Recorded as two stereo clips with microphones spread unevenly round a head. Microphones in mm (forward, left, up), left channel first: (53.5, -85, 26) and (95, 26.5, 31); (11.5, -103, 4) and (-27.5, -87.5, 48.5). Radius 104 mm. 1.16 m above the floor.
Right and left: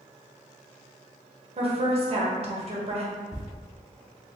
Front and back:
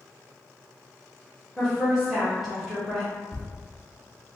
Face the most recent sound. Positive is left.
turn(degrees=-85)